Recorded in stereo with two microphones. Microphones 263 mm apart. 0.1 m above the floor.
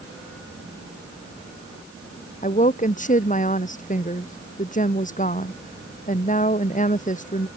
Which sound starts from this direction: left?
A woman speaking, at 2.4 s.